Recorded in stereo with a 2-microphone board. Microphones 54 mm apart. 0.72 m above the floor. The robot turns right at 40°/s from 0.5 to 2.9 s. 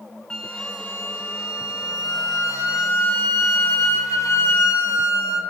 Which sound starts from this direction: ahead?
A flute, at 0.3 s.